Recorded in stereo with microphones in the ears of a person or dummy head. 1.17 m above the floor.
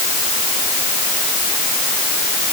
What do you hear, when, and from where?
Only background noise.